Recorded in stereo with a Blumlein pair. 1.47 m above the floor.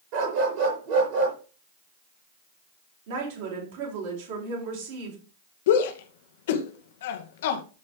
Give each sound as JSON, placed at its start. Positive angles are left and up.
{"t": 0.1, "sound": "a dog barking", "azimuth_deg": -45, "distance_m": 5.5}
{"t": 3.1, "sound": "a woman speaking", "azimuth_deg": -55, "distance_m": 6.0}
{"t": 5.7, "sound": "a shout", "azimuth_deg": 55, "distance_m": 2.0}